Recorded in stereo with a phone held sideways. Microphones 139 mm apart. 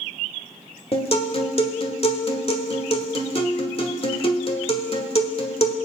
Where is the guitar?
45° left (ahead or behind), 1.5 m.